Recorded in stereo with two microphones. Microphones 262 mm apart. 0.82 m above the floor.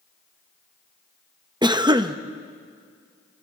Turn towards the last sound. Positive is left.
turn(degrees=-15)  # may be behind; listen again after turning